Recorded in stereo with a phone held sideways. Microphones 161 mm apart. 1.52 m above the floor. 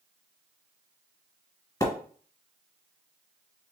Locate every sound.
1.8 s a splash: 20° left (ahead or behind), 1.5 m